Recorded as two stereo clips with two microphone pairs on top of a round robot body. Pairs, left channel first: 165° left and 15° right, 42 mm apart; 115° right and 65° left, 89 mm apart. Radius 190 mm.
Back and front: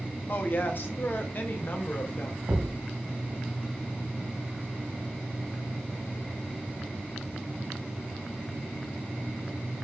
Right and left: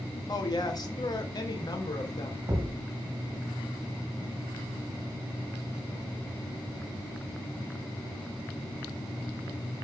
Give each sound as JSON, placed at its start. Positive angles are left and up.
{"t": 0.3, "sound": "a woman speaking", "azimuth_deg": -160, "distance_m": 2.5}
{"t": 2.5, "sound": "a thud", "azimuth_deg": 20, "distance_m": 3.5}